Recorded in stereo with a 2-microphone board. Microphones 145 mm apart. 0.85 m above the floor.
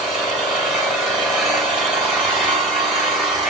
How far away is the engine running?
About 2 m.